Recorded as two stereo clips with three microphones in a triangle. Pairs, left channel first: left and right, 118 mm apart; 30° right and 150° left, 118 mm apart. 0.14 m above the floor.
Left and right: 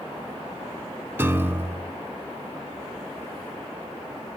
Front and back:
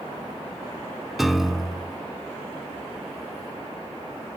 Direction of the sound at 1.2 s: 125° right.